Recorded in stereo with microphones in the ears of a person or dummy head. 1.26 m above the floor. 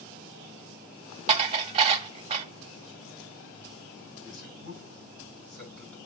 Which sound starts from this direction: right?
Dishes clattering, at 1.3 s.